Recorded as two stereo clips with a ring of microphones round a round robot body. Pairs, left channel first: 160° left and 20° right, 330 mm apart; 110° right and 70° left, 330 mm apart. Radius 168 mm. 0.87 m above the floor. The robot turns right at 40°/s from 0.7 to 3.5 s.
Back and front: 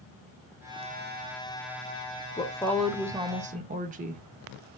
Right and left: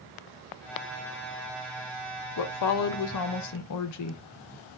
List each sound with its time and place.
2.4 s a woman speaking: 130° right, 0.6 m; by 4.2 s 85° right, 0.6 m